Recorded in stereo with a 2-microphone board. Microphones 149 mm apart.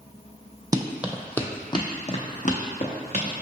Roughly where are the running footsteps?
Right.